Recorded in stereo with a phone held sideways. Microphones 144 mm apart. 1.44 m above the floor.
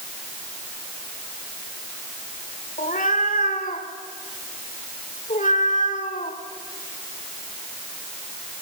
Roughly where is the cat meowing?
Left.